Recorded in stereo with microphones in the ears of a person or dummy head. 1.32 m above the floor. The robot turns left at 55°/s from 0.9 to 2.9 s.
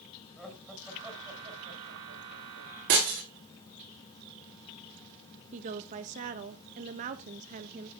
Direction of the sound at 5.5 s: 40° right (ahead or behind).